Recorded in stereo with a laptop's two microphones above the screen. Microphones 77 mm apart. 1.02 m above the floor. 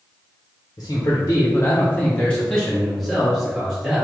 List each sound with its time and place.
0.8 s a man speaking: 40° left (ahead or behind), 0.8 m; by 4.0 s 10° right (ahead or behind), 1.5 m